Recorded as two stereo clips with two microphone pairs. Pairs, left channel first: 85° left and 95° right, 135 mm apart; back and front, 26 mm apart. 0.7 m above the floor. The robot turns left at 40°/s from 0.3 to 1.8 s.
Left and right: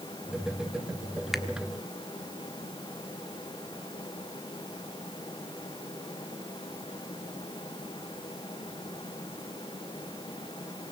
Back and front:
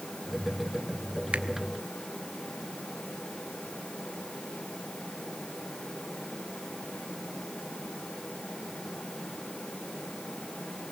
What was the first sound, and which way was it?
A finger snap, 5° right.